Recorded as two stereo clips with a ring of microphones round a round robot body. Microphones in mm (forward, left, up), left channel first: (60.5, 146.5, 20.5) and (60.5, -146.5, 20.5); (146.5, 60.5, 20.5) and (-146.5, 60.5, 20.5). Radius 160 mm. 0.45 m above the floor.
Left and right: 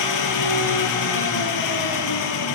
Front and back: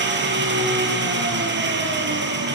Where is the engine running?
125° left, 4 m.